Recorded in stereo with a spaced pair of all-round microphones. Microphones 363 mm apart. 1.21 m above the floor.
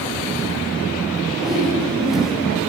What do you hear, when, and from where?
1.4 s a whoosh: centre (ahead or behind), 2 m